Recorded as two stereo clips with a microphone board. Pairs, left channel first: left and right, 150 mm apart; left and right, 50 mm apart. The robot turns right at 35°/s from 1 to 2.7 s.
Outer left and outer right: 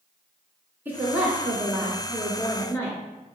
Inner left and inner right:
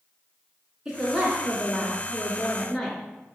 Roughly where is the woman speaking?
Centre.